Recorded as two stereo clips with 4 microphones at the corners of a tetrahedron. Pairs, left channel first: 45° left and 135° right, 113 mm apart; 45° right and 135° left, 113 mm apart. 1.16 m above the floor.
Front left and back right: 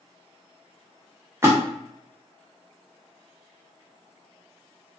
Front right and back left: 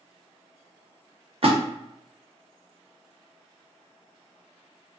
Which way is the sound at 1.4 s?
160° left.